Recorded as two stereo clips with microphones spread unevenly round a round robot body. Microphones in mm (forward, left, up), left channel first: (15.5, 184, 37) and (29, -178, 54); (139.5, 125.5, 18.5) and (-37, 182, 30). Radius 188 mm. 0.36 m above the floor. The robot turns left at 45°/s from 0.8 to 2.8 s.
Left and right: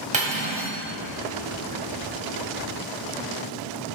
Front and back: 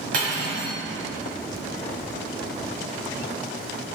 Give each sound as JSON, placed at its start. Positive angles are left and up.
{"t": 0.1, "sound": "cutlery clinking", "azimuth_deg": -160, "distance_m": 1.5}